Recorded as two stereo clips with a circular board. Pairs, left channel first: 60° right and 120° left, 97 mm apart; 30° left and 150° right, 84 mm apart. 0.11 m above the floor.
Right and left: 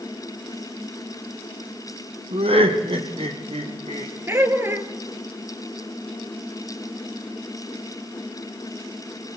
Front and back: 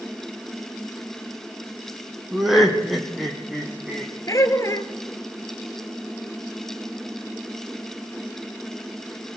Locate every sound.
2.3 s laughter: 125° left, 3 m
4.3 s laughter: 65° left, 1.8 m